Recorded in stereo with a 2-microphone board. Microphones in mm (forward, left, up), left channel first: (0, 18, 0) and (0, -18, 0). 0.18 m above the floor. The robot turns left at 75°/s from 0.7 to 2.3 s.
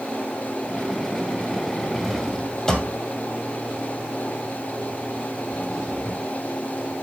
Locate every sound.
1.9 s a drawer: 15° right (ahead or behind), 2 m; by 6.2 s 10° left (ahead or behind), 2 m